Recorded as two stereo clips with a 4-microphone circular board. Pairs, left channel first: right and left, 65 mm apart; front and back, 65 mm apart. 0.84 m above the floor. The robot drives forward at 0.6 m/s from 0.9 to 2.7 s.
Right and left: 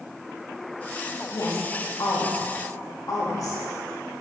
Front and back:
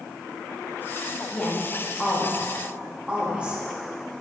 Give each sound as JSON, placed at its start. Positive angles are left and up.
{"t": 1.3, "sound": "a woman speaking", "azimuth_deg": -65, "distance_m": 1.3}